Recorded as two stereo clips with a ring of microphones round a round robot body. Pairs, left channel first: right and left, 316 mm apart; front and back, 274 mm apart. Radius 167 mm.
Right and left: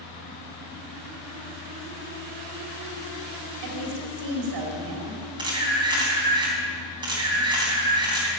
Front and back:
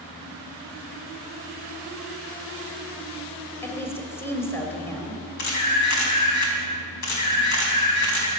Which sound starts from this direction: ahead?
A camera shutter, at 5.4 s.